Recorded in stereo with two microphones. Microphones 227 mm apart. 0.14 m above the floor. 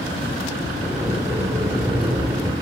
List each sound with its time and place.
0.8 s a sliding door: 15° right (ahead or behind), 2.5 m